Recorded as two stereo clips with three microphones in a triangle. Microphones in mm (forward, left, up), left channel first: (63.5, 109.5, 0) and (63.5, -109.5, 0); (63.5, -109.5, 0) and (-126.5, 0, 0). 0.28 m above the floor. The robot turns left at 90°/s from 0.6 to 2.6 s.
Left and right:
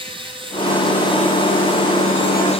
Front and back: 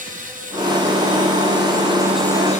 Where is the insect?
155° right, 9.5 m; by 2.6 s 25° left, 9.5 m.